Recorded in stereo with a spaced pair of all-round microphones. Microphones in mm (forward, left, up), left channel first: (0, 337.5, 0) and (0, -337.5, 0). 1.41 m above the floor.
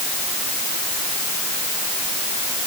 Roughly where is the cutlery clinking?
I don't hear cutlery clinking.